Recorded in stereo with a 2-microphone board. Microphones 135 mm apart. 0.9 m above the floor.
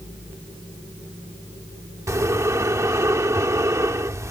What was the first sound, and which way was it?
Breathing, 20° right (ahead or behind).